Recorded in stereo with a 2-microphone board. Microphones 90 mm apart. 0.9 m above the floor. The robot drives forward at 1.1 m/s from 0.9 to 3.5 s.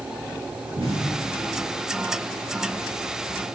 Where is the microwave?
I don't hear a microwave.